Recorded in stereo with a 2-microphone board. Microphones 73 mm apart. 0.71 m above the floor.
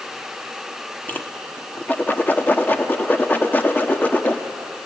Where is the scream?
I don't hear a scream.